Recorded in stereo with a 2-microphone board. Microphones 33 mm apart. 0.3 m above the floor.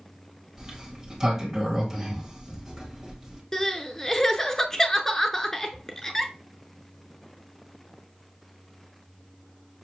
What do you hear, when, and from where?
0.6 s a sliding door: 15° right (ahead or behind), 1.5 m
3.5 s crying: 15° left (ahead or behind), 0.7 m